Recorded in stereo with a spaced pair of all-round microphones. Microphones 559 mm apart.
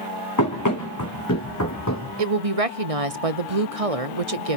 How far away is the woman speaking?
About 0.7 m.